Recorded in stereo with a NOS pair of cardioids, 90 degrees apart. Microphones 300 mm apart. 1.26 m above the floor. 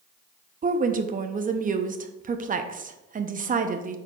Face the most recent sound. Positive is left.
turn(degrees=-30)